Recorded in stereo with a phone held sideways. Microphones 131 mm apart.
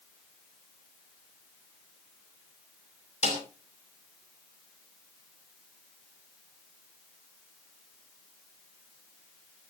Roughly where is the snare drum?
Left.